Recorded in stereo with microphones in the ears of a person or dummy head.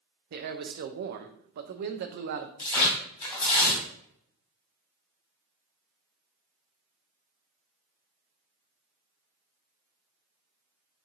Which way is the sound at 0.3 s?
50° right (ahead or behind).